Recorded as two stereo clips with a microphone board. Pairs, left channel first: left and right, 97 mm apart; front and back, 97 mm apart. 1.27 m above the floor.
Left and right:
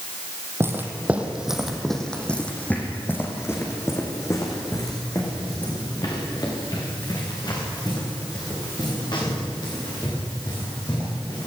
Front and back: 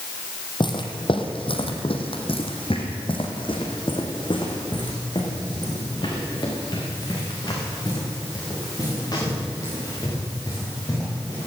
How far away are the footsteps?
About 2.5 m.